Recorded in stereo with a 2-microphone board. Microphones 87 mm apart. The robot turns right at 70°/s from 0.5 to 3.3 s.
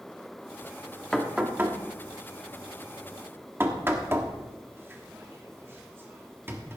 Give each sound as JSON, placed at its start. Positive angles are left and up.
{"t": 1.1, "sound": "knocking", "side_deg": 5, "distance_m": 1.4}